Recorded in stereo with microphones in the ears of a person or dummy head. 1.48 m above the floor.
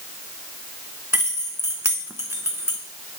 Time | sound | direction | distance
1.1 | keys jangling | 10° right (ahead or behind) | 0.8 m